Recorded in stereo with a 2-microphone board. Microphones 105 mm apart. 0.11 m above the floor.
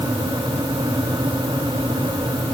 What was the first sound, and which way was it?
Only background noise.